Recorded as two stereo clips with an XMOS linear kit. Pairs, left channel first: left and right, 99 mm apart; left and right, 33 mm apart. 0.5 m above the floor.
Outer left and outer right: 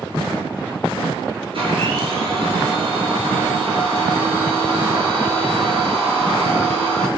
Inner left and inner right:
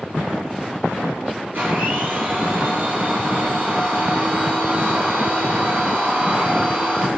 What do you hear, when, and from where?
1.5 s a blender: 65° right (ahead or behind), 3.5 m